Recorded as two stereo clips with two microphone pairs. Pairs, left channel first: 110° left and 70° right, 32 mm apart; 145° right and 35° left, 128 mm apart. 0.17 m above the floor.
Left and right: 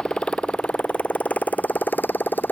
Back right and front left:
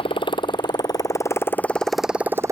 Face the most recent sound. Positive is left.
turn(degrees=100)